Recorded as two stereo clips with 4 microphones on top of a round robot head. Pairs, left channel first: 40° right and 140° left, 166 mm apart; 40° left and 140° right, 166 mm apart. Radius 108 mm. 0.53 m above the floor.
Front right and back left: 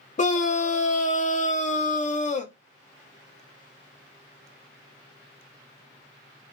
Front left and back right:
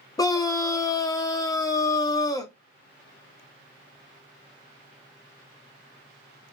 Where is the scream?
20° right, 0.9 m.